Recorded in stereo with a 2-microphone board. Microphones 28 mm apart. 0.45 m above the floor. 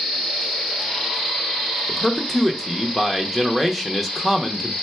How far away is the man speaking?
About 0.7 m.